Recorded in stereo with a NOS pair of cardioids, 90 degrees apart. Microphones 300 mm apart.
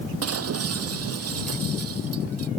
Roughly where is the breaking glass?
Ahead right.